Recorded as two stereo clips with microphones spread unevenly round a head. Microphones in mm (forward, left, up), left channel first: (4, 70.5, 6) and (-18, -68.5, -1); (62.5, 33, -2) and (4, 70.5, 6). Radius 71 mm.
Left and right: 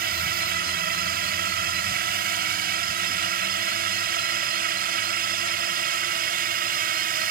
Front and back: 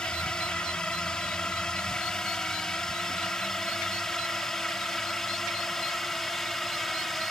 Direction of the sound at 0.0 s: 115° right.